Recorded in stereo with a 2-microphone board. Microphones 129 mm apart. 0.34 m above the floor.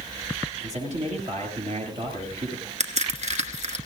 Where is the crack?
65° right (ahead or behind), 2.5 m.